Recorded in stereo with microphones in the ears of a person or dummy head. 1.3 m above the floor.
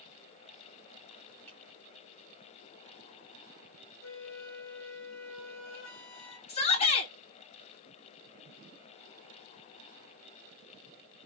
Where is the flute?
75° left (ahead or behind), 1.6 m.